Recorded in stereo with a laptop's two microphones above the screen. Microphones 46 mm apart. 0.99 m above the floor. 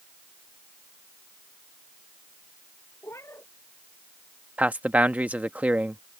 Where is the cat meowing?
75° left (ahead or behind).